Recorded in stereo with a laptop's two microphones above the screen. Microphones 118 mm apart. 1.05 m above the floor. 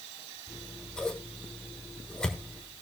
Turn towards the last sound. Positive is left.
turn(degrees=5)  # may be behind; listen again after turning